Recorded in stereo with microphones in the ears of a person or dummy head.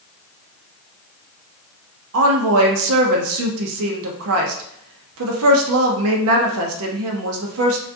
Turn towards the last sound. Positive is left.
turn(degrees=-80)